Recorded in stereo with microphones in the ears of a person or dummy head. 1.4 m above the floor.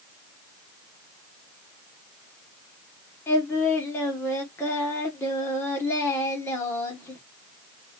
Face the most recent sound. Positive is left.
turn(degrees=15)  # may be behind; listen again after turning